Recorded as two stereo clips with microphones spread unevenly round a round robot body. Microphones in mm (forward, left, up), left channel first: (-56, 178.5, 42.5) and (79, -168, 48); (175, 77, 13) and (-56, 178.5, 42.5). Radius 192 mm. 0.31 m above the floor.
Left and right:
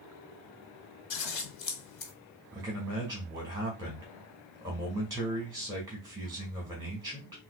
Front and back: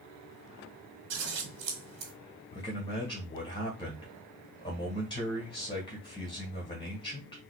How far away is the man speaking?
About 1.6 m.